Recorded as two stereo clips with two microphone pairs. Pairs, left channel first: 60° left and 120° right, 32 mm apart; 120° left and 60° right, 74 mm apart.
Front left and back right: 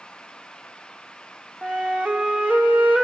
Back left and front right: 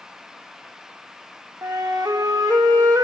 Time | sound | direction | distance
1.6 | a flute | 85° right | 1.4 m